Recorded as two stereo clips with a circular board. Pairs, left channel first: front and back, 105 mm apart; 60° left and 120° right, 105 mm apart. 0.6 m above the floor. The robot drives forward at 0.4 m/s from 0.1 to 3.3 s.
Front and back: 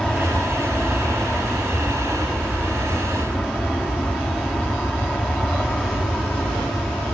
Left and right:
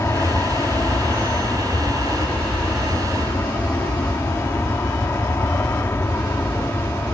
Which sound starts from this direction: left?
An aircraft, at 0.0 s.